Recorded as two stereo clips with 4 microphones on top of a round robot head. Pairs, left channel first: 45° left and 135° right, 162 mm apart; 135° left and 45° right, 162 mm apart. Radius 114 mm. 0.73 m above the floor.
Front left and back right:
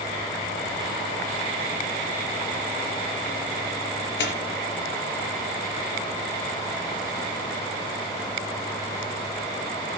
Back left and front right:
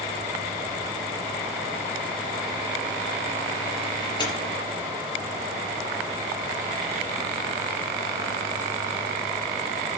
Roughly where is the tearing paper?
Left.